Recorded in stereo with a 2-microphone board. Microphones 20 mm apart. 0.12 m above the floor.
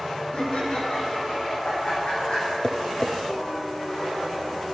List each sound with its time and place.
0.3 s laughter: 75° left (ahead or behind), 5 m
2.6 s tapping: 50° left (ahead or behind), 0.9 m